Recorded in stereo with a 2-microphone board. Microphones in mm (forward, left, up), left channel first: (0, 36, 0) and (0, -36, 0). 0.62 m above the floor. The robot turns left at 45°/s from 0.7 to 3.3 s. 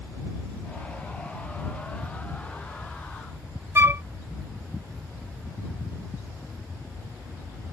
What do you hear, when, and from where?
3.8 s a flute: 35° right (ahead or behind)